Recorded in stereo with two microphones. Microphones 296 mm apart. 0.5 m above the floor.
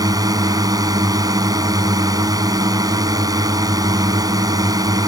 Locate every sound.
0.0 s a drone: 10° right (ahead or behind)